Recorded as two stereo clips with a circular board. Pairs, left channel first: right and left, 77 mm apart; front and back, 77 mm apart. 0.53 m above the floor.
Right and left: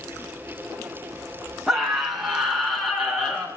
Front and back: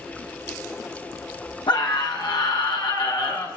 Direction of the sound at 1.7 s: 5° left.